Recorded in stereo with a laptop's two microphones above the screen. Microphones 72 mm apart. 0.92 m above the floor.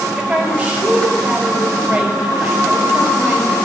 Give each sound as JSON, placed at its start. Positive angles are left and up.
{"t": 0.2, "sound": "a woman speaking", "side_deg": -15, "distance_m": 4.0}